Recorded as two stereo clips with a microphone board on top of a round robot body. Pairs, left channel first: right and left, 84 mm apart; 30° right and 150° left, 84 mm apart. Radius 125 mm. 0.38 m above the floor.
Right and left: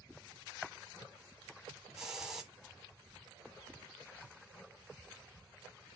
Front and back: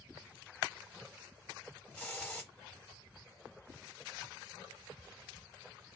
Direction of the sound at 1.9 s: 20° left.